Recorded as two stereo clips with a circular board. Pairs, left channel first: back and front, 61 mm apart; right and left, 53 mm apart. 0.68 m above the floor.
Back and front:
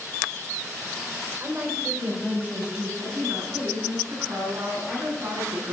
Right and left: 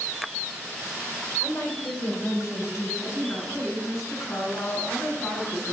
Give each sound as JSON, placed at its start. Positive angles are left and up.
{"t": 1.4, "sound": "a woman speaking", "azimuth_deg": -55, "distance_m": 3.0}
{"t": 3.0, "sound": "a woman speaking", "azimuth_deg": -50, "distance_m": 6.5}